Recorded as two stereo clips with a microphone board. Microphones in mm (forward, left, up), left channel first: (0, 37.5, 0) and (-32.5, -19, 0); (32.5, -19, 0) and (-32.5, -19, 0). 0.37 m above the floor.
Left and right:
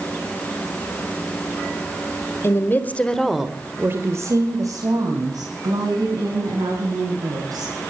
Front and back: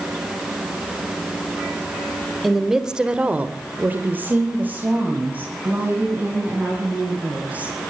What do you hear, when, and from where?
2.4 s a woman speaking: 95° left, 1.9 m; by 7.7 s 110° right, 6.5 m